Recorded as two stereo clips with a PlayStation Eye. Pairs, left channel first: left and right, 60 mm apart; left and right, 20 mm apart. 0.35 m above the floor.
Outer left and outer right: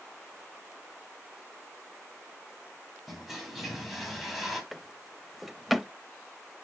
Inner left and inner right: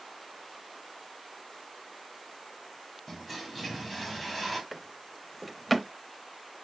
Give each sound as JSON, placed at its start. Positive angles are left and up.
{"t": 3.1, "sound": "a toilet flushing", "side_deg": 0, "distance_m": 2.5}
{"t": 4.7, "sound": "a drawer", "side_deg": 0, "distance_m": 0.8}